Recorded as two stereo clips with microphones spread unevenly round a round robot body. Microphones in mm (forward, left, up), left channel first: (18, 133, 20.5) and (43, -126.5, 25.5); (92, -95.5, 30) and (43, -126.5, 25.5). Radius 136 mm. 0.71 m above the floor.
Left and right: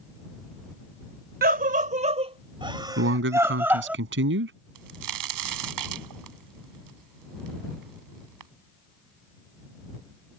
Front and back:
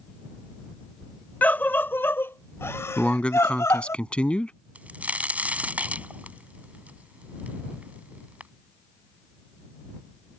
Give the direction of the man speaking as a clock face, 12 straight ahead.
1 o'clock.